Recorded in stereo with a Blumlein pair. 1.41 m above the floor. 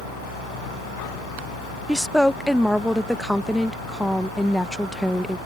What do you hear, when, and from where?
0.0 s a fan: 40° left
1.9 s a woman speaking: straight ahead